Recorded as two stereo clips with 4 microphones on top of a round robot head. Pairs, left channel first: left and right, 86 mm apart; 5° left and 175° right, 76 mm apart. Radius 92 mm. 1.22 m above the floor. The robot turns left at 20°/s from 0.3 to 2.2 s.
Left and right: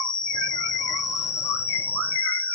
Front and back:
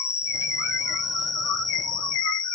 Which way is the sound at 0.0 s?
60° left.